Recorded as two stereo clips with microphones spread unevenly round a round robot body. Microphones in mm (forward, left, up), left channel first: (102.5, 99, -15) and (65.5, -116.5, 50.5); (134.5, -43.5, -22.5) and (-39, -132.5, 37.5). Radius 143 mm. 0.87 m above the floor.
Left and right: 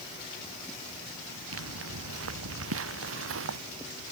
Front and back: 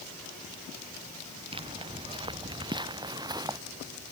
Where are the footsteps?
95° right; by 3.6 s 85° right.